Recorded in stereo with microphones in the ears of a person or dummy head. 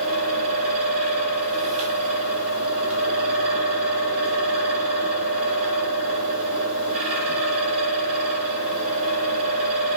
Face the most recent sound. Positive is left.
turn(degrees=-35)  # may be behind; listen again after turning